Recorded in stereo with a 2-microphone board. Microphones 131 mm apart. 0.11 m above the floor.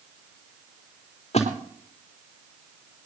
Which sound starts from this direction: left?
A splash, at 1.3 s.